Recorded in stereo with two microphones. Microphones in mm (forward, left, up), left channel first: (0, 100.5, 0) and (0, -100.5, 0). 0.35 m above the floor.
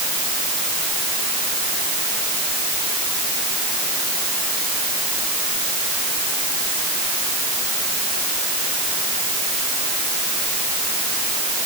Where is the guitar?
No guitar in this recording.